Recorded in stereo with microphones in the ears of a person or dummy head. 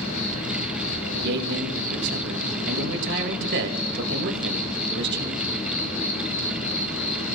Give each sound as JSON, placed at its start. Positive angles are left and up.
{"t": 0.0, "sound": "an insect", "side_deg": 60, "distance_m": 1.6}
{"t": 1.1, "sound": "a man speaking", "side_deg": -60, "distance_m": 1.9}